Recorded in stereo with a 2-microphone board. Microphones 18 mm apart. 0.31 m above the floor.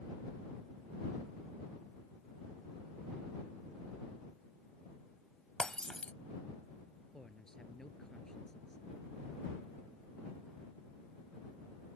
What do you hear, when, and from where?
5.6 s breaking glass: 45° left (ahead or behind)
7.1 s a woman speaking: 25° left (ahead or behind)